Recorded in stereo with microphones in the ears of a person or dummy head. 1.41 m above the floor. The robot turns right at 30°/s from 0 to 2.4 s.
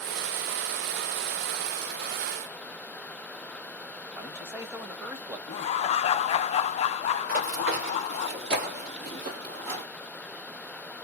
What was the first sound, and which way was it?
A man speaking, 15° right (ahead or behind).